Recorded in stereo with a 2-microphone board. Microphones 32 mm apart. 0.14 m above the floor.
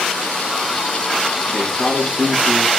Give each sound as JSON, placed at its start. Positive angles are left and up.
{"t": 1.5, "sound": "a man speaking", "side_deg": -35, "distance_m": 6.0}